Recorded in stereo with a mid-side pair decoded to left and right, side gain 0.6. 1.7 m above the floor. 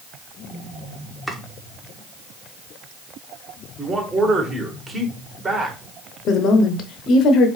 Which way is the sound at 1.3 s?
Straight ahead.